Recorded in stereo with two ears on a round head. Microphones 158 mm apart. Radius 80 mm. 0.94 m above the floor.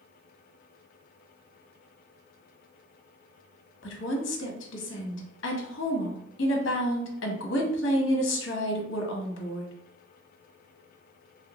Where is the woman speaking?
70° left (ahead or behind), 0.9 m.